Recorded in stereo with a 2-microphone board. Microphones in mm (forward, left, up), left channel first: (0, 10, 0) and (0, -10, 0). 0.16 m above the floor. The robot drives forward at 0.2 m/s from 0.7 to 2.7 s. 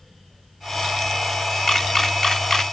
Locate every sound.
1.7 s a camera shutter: 15° left (ahead or behind), 0.6 m